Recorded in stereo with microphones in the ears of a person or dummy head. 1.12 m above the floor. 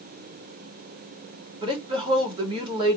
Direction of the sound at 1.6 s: 25° right (ahead or behind).